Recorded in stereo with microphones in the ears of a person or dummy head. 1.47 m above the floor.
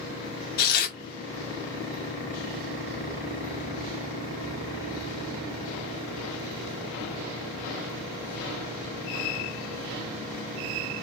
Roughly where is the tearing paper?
Left.